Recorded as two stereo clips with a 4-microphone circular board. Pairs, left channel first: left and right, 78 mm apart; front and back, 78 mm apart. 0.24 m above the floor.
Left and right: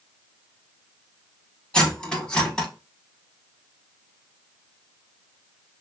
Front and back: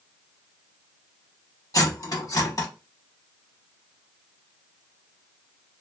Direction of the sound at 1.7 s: 15° left.